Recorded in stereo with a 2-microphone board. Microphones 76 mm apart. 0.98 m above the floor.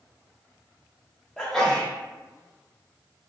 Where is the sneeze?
10° left (ahead or behind), 0.8 m.